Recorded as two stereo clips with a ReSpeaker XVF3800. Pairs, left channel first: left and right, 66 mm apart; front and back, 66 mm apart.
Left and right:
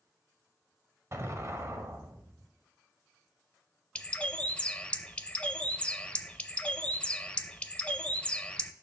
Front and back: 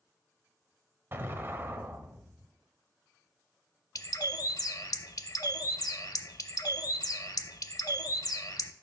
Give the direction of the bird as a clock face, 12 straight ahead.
11 o'clock.